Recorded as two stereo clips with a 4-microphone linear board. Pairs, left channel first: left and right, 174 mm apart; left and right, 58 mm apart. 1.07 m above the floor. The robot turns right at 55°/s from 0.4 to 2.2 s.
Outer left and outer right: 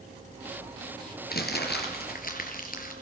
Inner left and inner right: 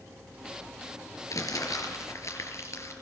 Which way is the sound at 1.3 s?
70° left.